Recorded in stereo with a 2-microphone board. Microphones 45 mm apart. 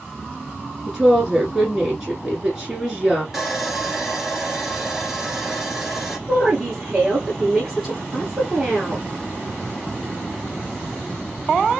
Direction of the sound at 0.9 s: 10° right (ahead or behind).